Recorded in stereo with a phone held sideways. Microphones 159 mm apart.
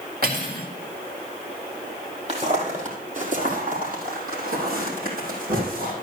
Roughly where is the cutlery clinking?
Right.